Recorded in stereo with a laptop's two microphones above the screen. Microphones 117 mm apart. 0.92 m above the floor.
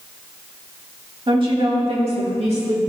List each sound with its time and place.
1.3 s a woman speaking: 45° right (ahead or behind), 1.8 m; by 2.8 s 70° right (ahead or behind), 2 m